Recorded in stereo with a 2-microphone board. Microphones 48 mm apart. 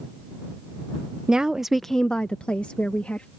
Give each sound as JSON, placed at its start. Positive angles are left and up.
{"t": 1.3, "sound": "a woman speaking", "side_deg": -20}